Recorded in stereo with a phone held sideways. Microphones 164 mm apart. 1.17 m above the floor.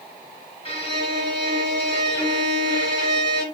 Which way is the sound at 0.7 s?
35° right (ahead or behind).